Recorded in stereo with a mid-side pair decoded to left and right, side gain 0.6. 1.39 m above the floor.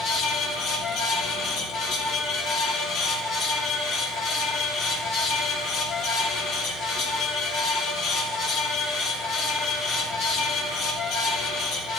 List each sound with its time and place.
0.0 s a fan: 60° left, 3 m